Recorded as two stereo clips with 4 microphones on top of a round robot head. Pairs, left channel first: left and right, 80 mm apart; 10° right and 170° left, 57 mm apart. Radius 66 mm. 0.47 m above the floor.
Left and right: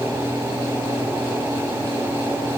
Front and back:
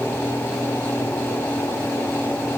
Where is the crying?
I don't hear crying.